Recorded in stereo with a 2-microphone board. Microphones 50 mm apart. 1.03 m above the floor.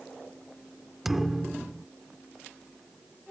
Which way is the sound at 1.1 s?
5° right (ahead or behind).